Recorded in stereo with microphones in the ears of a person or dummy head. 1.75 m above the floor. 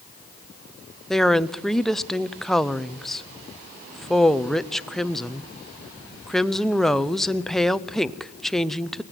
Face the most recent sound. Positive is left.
turn(degrees=-5)  # may be behind; listen again after turning